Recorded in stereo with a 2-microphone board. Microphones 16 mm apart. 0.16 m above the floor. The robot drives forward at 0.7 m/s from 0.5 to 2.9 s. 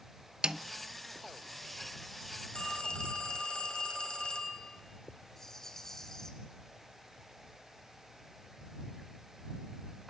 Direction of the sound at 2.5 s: 60° left (ahead or behind).